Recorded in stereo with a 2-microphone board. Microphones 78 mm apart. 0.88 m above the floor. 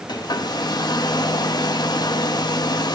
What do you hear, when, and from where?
0.1 s a hair dryer: 60° left (ahead or behind), 1.0 m